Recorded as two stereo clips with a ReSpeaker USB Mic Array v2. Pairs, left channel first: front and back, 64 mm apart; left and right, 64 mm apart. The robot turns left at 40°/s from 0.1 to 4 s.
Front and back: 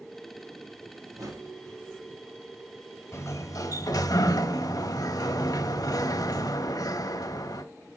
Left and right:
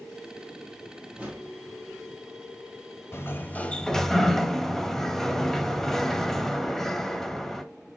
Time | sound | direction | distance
1.1 | a whoosh | 155° right | 3 m
3.1 | a sliding door | 40° left | 0.9 m